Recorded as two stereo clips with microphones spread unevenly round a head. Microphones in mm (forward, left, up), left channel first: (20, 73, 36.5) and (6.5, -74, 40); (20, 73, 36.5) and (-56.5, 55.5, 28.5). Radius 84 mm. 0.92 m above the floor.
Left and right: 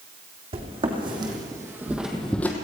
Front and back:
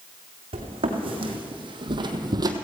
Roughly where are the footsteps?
Behind right.